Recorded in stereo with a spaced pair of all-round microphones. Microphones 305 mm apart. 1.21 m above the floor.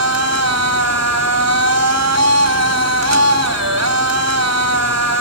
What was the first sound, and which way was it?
A machine running, 60° right (ahead or behind).